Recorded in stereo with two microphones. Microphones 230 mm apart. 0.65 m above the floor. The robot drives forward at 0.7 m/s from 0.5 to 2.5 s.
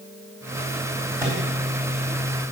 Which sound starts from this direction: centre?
A microwave, at 1.2 s.